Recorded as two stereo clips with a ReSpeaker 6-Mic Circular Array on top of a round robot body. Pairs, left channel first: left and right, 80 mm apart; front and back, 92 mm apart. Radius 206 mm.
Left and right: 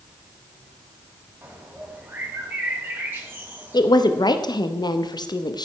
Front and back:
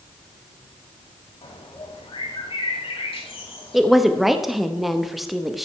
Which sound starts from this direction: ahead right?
A bird, at 1.4 s.